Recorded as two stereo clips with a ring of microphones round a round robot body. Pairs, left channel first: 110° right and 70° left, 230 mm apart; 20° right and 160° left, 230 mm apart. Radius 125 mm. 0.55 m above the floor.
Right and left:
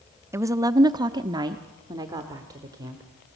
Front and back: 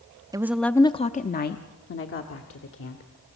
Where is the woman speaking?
120° left, 0.6 m; by 3.0 s 5° right, 1.8 m.